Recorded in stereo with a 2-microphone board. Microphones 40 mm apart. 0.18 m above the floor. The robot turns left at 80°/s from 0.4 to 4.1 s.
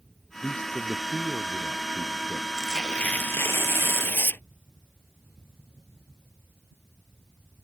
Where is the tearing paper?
Straight behind; by 4.4 s 60° left.